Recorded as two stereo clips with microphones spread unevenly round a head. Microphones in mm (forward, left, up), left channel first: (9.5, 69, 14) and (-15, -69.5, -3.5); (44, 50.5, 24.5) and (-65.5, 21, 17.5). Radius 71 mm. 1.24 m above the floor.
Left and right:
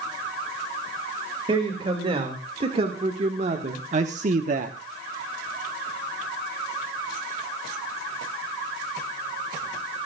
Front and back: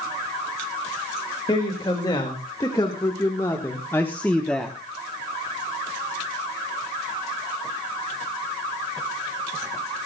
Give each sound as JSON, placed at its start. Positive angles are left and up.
{"t": 1.5, "sound": "a man speaking", "azimuth_deg": -45, "distance_m": 2.5}